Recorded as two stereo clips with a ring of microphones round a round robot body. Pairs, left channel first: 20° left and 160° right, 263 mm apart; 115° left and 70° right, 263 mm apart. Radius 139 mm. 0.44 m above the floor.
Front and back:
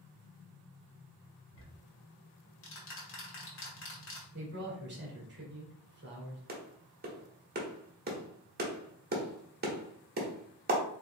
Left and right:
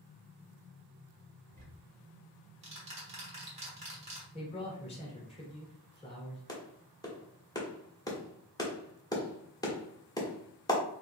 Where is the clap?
Straight behind, 1.2 m.